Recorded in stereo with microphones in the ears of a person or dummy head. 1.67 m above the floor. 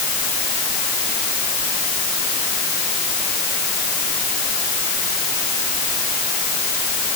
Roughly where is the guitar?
I don't hear a guitar.